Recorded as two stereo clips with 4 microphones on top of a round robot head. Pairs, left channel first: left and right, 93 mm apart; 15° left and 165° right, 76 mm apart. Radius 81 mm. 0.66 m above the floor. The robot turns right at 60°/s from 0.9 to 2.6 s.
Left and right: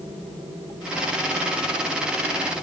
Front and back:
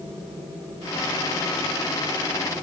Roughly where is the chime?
No chime in this recording.